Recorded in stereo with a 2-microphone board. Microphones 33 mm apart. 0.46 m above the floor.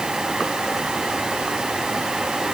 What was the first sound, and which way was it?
Only background noise.